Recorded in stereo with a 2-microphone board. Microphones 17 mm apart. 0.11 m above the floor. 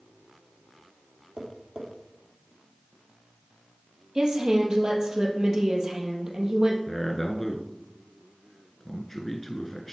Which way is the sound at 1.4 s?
55° right (ahead or behind).